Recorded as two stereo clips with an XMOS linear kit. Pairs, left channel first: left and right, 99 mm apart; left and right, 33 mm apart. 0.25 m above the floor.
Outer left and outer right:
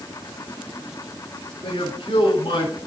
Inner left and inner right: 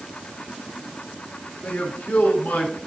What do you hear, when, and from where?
1.6 s a man speaking: 60° left (ahead or behind), 4 m